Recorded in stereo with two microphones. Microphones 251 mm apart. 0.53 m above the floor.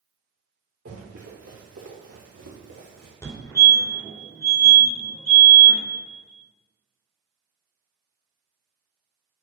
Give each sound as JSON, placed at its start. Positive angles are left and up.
{"t": 0.8, "sound": "running footsteps", "side_deg": -75, "distance_m": 4.0}
{"t": 3.2, "sound": "a fire alarm", "side_deg": 15, "distance_m": 2.5}